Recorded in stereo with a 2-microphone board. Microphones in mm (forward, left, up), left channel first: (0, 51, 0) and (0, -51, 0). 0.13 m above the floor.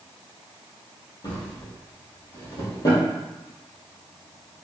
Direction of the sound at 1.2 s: 40° left (ahead or behind).